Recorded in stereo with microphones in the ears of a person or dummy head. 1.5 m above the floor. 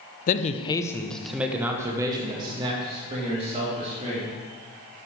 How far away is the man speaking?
About 0.9 m.